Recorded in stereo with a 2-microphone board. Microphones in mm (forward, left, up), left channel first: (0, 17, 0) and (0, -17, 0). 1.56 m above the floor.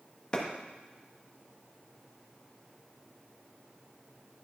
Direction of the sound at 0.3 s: 30° left (ahead or behind).